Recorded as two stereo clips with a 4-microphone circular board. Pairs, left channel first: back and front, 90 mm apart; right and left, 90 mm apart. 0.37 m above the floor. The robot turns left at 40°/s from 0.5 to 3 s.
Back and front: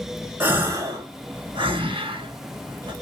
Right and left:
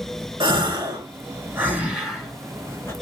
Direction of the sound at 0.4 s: 65° left.